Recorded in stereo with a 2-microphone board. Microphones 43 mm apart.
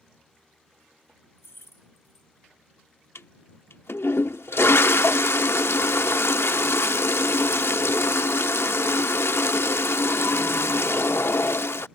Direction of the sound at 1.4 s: 80° left.